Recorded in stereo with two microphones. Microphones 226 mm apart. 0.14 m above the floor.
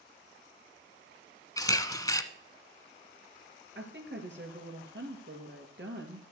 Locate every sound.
1.6 s a camera shutter: 15° left (ahead or behind), 0.8 m
3.8 s a woman speaking: 60° right (ahead or behind), 2.5 m